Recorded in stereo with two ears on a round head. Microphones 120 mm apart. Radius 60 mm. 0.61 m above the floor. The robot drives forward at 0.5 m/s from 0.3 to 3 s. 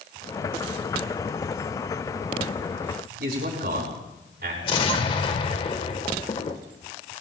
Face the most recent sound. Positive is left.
turn(degrees=40)  # may be behind; listen again after turning